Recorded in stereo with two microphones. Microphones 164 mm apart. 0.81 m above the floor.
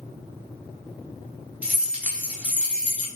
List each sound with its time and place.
1.6 s keys jangling: 5° right (ahead or behind), 1.0 m